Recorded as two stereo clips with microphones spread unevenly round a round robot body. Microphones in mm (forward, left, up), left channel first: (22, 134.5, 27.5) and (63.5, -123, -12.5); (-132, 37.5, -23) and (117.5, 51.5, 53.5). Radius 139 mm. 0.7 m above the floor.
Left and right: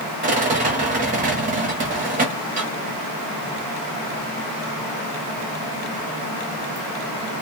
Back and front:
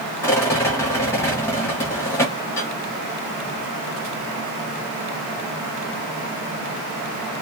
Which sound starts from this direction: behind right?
A rattle, at 0.2 s.